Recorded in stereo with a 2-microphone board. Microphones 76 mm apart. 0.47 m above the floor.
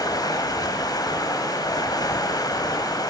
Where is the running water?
55° left (ahead or behind), 1.5 m.